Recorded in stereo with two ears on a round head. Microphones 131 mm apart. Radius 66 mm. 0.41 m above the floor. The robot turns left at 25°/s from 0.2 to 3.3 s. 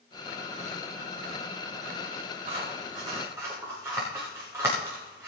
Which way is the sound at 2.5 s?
40° right (ahead or behind).